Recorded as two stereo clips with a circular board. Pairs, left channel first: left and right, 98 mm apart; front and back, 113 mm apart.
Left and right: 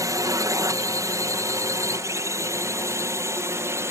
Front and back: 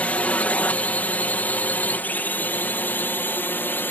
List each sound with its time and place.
0.0 s a drone: 70° right; by 3.9 s 55° right